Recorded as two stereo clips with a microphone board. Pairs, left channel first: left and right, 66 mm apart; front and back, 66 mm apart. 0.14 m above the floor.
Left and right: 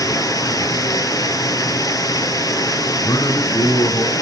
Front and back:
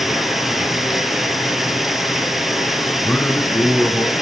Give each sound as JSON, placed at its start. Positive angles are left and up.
{"t": 0.0, "sound": "running water", "azimuth_deg": 95, "distance_m": 2.0}
{"t": 3.0, "sound": "a man speaking", "azimuth_deg": 70, "distance_m": 7.5}